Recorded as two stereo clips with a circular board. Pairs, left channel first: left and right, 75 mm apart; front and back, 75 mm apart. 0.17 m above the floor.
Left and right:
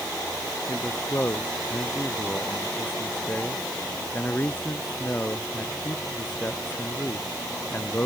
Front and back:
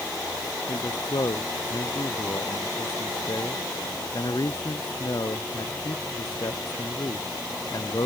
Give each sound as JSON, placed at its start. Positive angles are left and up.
{"t": 0.7, "sound": "a man speaking", "azimuth_deg": 25}